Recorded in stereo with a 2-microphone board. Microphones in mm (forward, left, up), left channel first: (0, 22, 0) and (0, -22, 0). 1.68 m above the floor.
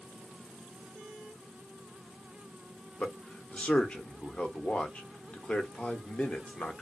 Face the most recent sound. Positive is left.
turn(degrees=30)  # may be behind; listen again after turning